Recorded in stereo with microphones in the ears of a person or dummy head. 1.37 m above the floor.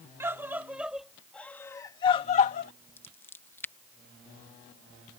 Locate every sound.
0.2 s a scream: 15° right (ahead or behind); by 2.7 s 55° left (ahead or behind)
3.0 s scissors: 10° left (ahead or behind)